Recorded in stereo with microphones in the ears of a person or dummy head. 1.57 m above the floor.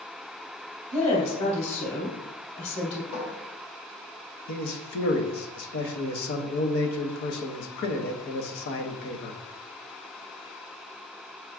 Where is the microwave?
I don't hear a microwave.